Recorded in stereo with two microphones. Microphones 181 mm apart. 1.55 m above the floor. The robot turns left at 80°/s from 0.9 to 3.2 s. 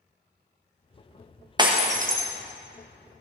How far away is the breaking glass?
About 1.0 m.